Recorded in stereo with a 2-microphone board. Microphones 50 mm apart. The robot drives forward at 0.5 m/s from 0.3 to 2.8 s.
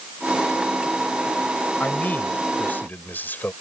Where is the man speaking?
35° left (ahead or behind); by 3.5 s 40° left (ahead or behind).